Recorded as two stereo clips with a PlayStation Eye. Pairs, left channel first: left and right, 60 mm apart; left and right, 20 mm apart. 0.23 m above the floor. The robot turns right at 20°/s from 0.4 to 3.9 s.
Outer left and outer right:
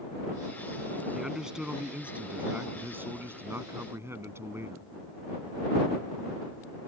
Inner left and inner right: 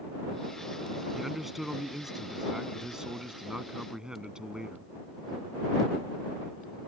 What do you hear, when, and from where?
1.1 s a man speaking: 170° right; by 4.9 s 115° right